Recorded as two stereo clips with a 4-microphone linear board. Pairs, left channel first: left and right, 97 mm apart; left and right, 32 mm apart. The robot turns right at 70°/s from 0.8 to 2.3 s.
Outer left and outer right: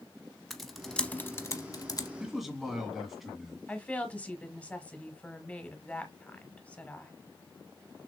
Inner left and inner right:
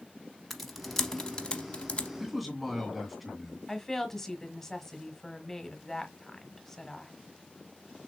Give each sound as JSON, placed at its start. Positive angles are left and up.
{"t": 0.5, "sound": "typing on a keyboard", "side_deg": 0, "distance_m": 0.8}
{"t": 2.2, "sound": "a man speaking", "side_deg": -5, "distance_m": 1.9}
{"t": 3.7, "sound": "a woman speaking", "side_deg": 15, "distance_m": 1.2}